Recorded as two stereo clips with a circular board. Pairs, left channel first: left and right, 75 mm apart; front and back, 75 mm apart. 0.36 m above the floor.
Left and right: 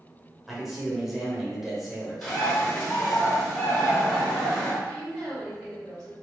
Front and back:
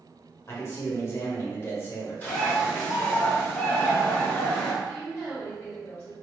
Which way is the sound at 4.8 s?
10° right.